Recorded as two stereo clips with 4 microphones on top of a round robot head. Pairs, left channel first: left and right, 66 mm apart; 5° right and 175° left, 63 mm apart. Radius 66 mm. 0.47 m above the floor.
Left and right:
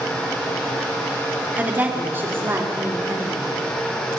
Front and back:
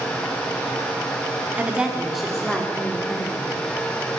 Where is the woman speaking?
135° right, 1.5 m; by 3.4 s 50° right, 2 m.